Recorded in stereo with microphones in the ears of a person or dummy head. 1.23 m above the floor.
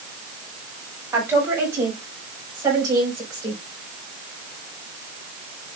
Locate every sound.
1.1 s a woman speaking: 15° right (ahead or behind), 6 m; by 3.6 s 20° right (ahead or behind), 5 m